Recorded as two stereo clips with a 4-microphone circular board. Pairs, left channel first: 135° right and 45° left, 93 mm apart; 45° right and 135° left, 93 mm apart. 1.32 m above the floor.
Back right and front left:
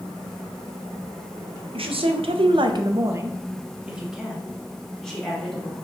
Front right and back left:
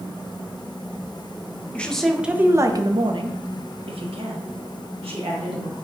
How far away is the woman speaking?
About 0.6 m.